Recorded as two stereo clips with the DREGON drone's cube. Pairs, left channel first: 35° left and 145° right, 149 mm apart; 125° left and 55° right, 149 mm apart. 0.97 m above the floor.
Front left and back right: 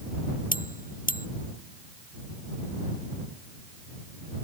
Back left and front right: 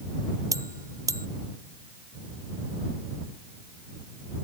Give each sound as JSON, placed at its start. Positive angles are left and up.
{"t": 0.5, "sound": "a bell", "azimuth_deg": 15}